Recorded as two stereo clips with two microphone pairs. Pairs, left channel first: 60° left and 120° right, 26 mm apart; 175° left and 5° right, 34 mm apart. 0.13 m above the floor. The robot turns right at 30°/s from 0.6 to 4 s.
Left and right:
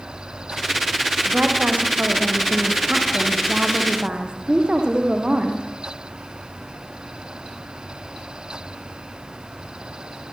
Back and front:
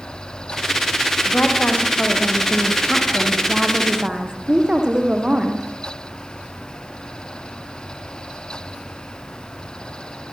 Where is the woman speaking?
150° right, 5.5 m; by 5.7 s 70° right, 5.5 m.